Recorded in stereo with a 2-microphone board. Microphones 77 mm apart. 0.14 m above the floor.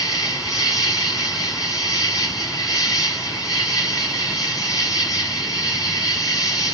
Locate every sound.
0.0 s an insect: 45° left (ahead or behind), 1.1 m